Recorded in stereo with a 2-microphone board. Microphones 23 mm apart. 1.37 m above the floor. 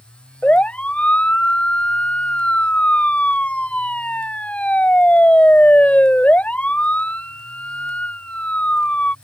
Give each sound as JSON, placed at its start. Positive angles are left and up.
{"t": 0.4, "sound": "a siren", "side_deg": 70}